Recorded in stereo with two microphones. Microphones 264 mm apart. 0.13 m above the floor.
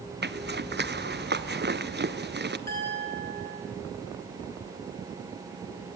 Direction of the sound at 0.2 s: 40° right (ahead or behind).